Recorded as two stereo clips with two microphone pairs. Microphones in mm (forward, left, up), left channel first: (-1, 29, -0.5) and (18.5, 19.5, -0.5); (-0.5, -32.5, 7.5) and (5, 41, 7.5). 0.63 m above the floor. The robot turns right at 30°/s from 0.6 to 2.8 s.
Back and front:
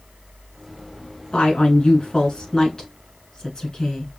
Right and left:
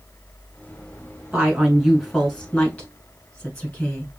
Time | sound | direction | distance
1.3 | a woman speaking | 165° left | 3.5 m